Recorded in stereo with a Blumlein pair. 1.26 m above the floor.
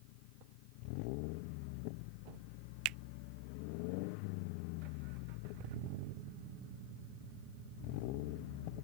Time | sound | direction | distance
2.9 | a finger snap | 40° right | ?